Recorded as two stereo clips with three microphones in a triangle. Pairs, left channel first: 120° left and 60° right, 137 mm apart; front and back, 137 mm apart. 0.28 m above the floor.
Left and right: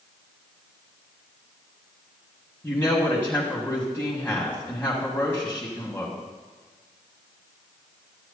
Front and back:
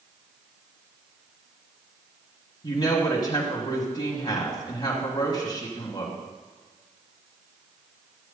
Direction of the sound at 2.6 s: 45° left.